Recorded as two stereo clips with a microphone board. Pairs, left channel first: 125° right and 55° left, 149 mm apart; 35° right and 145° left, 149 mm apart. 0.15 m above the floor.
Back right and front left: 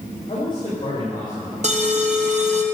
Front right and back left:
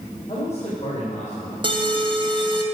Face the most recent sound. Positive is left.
turn(degrees=90)